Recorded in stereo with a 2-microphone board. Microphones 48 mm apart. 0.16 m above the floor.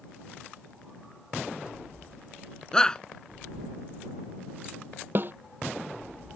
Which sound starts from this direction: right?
A snare drum, at 5.2 s.